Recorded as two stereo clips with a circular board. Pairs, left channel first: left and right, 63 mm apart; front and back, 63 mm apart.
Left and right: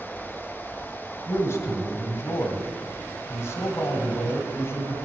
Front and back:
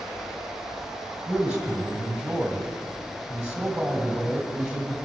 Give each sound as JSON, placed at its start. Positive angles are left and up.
{"t": 1.3, "sound": "a man speaking", "azimuth_deg": 105, "distance_m": 1.9}